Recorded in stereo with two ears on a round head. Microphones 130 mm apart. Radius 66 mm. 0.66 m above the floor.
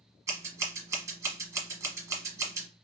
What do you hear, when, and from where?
0.3 s scissors: 20° right (ahead or behind), 1.0 m